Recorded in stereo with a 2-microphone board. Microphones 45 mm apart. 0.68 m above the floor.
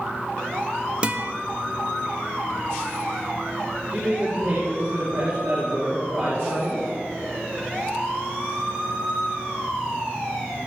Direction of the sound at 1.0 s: 25° right (ahead or behind).